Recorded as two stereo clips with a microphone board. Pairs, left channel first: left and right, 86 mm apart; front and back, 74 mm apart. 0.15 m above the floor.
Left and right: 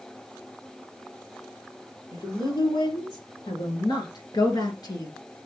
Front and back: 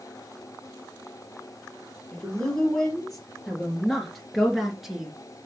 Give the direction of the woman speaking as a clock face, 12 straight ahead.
9 o'clock.